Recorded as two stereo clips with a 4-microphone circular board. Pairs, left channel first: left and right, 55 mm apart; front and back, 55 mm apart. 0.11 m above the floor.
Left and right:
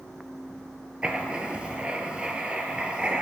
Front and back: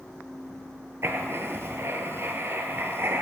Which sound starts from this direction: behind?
Writing, at 1.0 s.